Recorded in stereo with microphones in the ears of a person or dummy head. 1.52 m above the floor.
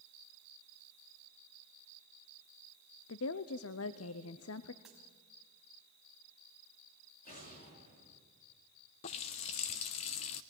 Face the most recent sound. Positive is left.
turn(degrees=25)  # may be behind; listen again after turning